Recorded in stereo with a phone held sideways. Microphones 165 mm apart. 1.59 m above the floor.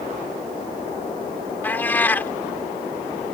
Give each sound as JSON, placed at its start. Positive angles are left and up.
{"t": 1.6, "sound": "a cat meowing", "side_deg": 10}